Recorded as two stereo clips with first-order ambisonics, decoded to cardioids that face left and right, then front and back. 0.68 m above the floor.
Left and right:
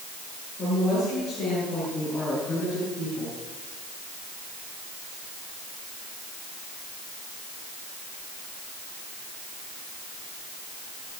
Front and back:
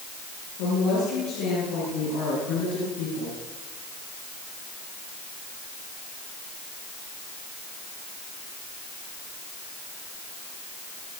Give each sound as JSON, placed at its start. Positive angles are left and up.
{"t": 0.6, "sound": "a woman speaking", "azimuth_deg": 25, "distance_m": 8.5}